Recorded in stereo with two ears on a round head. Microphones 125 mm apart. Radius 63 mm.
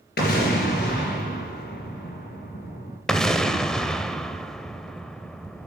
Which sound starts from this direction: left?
An explosion, at 0.2 s.